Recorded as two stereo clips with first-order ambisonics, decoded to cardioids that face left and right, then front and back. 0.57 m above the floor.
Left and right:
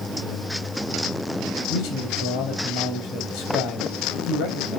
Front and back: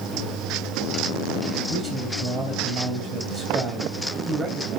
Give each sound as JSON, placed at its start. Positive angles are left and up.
{"t": 1.7, "sound": "a man speaking", "azimuth_deg": 95, "distance_m": 2.5}